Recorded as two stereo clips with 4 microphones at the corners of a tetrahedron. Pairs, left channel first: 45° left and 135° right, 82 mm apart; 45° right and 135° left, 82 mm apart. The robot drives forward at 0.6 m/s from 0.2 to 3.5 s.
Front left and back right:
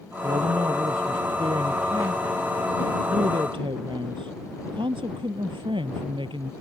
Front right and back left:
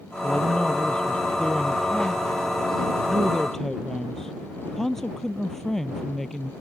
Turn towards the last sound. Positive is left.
turn(degrees=-130)